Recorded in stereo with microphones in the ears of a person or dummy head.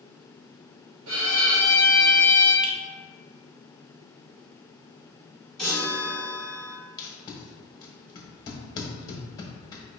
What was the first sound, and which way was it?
A violin, 80° right.